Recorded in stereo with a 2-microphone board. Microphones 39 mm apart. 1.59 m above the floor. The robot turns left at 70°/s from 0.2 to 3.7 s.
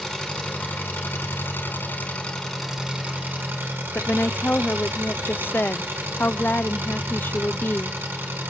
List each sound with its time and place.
0.0 s an engine running: 165° left, 5.5 m; by 8.5 s 80° right, 5.5 m
4.0 s a woman speaking: 60° left (ahead or behind), 0.6 m